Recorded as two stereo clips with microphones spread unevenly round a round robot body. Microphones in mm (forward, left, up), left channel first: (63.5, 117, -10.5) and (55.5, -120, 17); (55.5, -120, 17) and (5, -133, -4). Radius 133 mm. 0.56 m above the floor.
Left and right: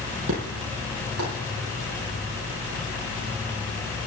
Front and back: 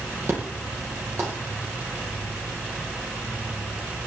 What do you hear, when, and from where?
0.3 s an explosion: 135° right, 7.5 m